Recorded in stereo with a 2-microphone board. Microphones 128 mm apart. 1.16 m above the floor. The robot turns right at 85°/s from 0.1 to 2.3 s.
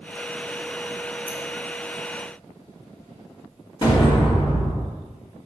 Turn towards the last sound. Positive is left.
turn(degrees=40)  # may be behind; listen again after turning